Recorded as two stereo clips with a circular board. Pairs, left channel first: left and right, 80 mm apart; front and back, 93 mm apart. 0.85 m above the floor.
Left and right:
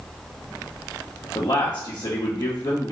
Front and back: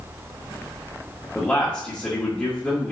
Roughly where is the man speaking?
Left.